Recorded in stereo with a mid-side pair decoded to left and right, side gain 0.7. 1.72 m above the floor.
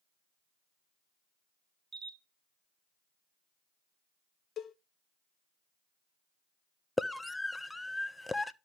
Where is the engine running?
I don't hear an engine running.